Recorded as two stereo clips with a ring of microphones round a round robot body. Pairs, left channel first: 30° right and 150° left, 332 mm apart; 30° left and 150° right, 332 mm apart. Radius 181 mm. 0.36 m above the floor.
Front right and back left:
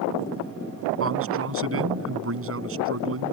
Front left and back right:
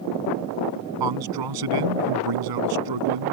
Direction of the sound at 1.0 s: 160° right.